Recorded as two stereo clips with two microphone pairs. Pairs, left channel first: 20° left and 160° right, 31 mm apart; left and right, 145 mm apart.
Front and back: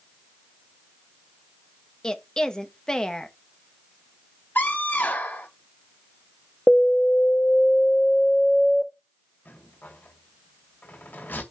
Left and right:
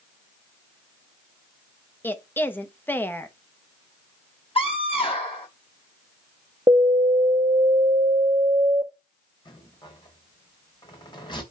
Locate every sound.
2.0 s a woman speaking: 35° left, 0.9 m
4.5 s a scream: 40° left, 4.5 m
6.7 s an alarm: 40° right, 1.5 m
9.4 s a rattle: 35° left, 2.5 m